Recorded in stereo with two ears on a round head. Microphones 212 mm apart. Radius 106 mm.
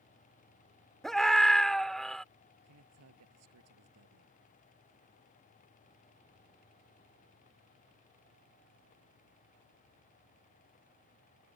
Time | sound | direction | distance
1.0 | a scream | centre (ahead or behind) | ?
2.6 | a man speaking | 80° right | ?